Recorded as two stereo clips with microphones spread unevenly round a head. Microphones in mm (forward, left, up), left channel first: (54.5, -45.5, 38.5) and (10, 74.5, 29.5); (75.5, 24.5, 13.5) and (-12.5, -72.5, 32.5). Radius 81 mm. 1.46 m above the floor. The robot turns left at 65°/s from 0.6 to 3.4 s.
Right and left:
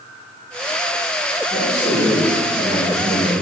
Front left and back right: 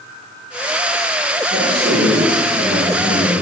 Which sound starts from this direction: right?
A man speaking, at 1.5 s.